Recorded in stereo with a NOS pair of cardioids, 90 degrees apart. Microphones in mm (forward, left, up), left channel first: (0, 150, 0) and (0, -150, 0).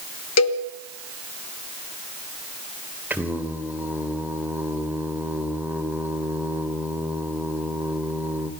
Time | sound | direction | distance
0.4 | a cowbell | 65° left | 1.3 m
3.1 | singing | 5° right | 2.5 m